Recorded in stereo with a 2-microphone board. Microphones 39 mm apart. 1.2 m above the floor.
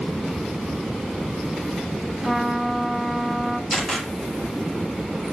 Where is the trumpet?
Centre (ahead or behind), 0.9 m.